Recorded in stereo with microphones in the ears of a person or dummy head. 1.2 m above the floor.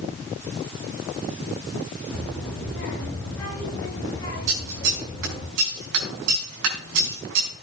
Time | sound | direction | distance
2.1 | a child speaking | 10° left (ahead or behind) | 8 m
4.5 | scissors | 70° right (ahead or behind) | 4.5 m